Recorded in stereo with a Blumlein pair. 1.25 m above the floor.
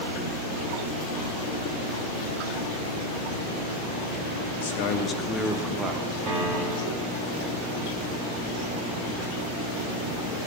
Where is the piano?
30° right, 1.8 m.